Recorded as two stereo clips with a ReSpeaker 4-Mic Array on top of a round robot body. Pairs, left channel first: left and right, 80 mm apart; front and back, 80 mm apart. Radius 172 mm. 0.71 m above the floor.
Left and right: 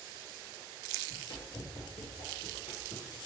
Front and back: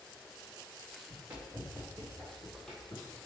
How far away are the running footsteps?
About 3.5 m.